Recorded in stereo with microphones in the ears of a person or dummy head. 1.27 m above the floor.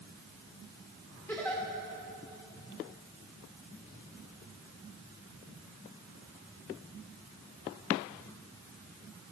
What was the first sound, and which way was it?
A giggle, 5° left (ahead or behind).